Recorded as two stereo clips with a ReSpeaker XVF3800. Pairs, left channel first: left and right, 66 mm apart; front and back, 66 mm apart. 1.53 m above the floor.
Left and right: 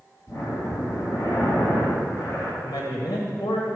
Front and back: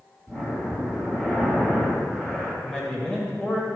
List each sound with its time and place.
0.3 s breathing: 65° left, 2.5 m
2.6 s a man speaking: 75° left, 1.5 m